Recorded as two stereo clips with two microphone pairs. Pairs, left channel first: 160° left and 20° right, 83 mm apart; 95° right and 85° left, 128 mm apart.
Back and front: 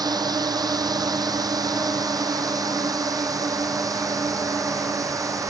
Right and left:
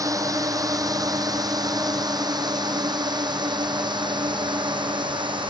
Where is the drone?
20° left; by 5.5 s 30° left.